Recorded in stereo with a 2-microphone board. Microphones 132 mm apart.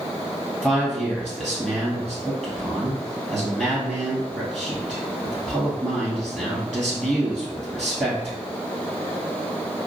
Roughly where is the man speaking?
Centre.